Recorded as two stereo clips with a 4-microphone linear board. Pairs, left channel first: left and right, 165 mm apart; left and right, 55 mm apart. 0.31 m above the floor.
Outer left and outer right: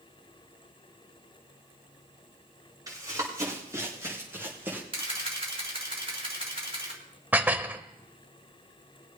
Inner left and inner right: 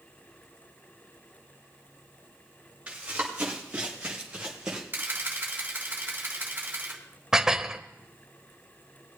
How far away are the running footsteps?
About 5 m.